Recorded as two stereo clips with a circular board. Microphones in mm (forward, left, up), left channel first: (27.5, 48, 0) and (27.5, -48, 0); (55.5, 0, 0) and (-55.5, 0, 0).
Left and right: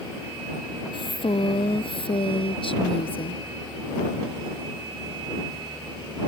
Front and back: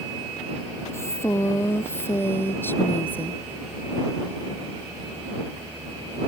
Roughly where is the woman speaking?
Ahead left.